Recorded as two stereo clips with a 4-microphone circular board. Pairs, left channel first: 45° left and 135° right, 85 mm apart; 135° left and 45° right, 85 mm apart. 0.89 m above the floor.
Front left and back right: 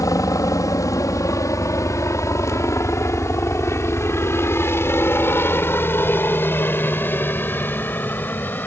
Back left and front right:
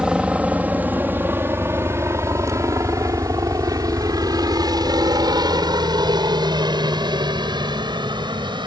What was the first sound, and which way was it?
A helicopter, 30° left.